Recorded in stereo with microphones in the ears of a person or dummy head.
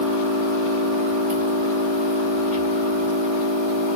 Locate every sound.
0.0 s an engine running: 35° right (ahead or behind), 1.5 m